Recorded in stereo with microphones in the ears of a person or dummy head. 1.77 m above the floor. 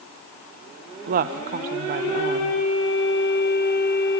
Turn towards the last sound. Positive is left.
turn(degrees=-50)  # may be behind; listen again after turning